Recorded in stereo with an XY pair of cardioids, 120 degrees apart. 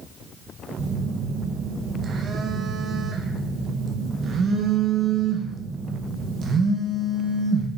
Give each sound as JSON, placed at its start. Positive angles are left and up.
{"t": 0.8, "sound": "a phone buzzing", "azimuth_deg": -45, "distance_m": 0.9}